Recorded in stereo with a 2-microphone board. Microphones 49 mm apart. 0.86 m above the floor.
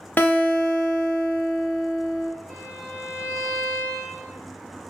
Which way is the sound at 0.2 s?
40° left (ahead or behind).